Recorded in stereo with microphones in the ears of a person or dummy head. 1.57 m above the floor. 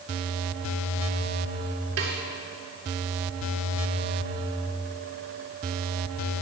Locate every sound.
2.0 s a snare drum: 80° right, 2.5 m